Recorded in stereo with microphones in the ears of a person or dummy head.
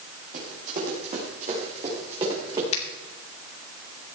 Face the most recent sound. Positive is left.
turn(degrees=40)  # may be behind; listen again after turning